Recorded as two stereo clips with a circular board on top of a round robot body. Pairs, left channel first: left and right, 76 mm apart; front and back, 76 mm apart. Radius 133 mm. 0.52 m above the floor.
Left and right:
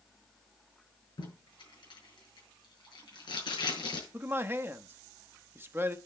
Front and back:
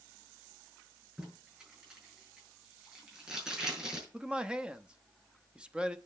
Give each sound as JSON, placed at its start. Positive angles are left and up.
{"t": 1.2, "sound": "tape being pulled", "azimuth_deg": 105, "distance_m": 5.5}
{"t": 4.1, "sound": "a man speaking", "azimuth_deg": -115, "distance_m": 1.0}